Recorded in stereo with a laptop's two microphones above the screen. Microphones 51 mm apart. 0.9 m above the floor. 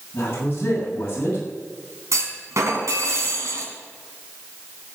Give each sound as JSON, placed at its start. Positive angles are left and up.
{"t": 0.1, "sound": "a man speaking", "side_deg": 40, "distance_m": 7.5}
{"t": 2.1, "sound": "a clunk", "side_deg": -75, "distance_m": 3.5}